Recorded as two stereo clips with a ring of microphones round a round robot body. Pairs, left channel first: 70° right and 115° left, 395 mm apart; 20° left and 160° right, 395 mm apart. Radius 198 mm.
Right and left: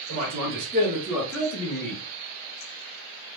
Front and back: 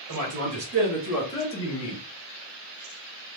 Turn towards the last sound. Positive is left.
turn(degrees=-10)